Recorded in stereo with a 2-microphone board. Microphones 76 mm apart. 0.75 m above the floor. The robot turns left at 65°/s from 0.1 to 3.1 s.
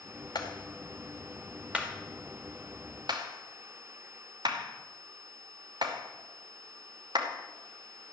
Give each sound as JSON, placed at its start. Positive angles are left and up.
{"t": 0.3, "sound": "a clap", "side_deg": 70, "distance_m": 2.5}